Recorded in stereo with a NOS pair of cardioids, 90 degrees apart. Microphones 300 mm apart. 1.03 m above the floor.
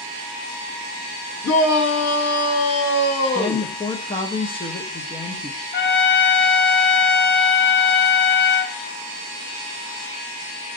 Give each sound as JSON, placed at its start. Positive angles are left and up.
{"t": 1.4, "sound": "a shout", "azimuth_deg": 55, "distance_m": 1.7}
{"t": 3.4, "sound": "a woman speaking", "azimuth_deg": 20, "distance_m": 0.6}
{"t": 5.7, "sound": "a trumpet", "azimuth_deg": 40, "distance_m": 0.7}